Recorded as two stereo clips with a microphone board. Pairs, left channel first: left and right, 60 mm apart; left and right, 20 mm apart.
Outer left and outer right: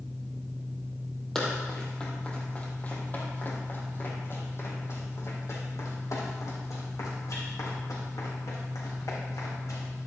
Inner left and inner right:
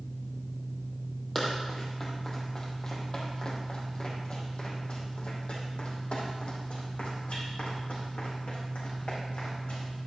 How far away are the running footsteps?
About 3 m.